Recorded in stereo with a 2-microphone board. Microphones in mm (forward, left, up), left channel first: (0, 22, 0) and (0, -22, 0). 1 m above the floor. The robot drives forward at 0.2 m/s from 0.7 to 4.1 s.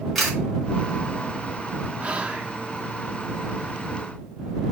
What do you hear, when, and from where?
0.1 s a camera shutter: 5° left (ahead or behind), 4.5 m
2.0 s whispering: 25° right (ahead or behind), 1.1 m; by 2.5 s 20° right (ahead or behind), 1.2 m